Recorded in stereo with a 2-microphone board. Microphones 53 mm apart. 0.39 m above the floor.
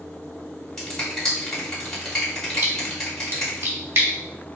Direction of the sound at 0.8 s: 10° left (ahead or behind).